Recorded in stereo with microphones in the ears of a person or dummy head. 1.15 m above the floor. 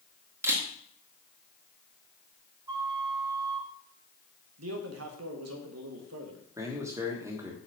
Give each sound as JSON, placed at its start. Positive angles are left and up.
{"t": 0.4, "sound": "a camera shutter", "side_deg": -15, "distance_m": 1.6}
{"t": 2.7, "sound": "a flute", "side_deg": -20, "distance_m": 1.8}
{"t": 4.6, "sound": "a man speaking", "side_deg": -80, "distance_m": 1.4}
{"t": 6.6, "sound": "a man speaking", "side_deg": -10, "distance_m": 1.3}